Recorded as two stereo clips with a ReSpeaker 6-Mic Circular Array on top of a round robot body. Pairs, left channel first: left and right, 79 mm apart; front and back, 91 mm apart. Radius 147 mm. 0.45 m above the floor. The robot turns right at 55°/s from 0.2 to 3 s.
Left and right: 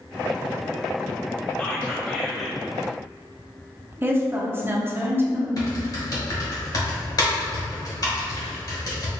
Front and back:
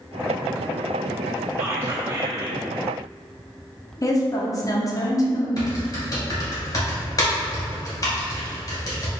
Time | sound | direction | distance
1.6 | whispering | 150° left | 1.3 m
4.0 | a woman speaking | 35° right | 1.0 m
5.6 | typing on a keyboard | 50° left | 1.6 m